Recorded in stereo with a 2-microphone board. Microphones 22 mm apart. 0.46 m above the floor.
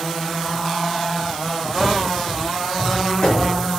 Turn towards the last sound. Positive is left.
turn(degrees=35)  # may be behind; listen again after turning